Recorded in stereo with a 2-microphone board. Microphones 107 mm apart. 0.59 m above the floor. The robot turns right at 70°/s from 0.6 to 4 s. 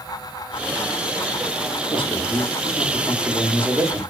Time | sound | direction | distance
1.9 | a man speaking | 85° left | 0.9 m